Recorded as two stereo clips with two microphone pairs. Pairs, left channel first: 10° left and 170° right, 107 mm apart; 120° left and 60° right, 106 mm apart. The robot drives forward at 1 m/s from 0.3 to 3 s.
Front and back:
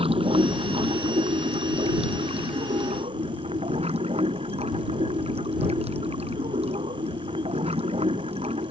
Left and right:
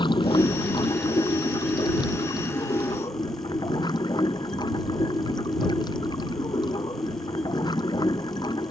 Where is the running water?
160° left; by 8.7 s 170° left.